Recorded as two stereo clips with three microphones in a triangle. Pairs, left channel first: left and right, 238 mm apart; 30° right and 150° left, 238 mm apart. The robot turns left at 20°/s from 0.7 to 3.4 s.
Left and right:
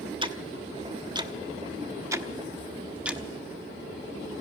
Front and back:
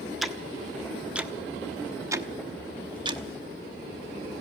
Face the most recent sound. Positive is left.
turn(degrees=-175)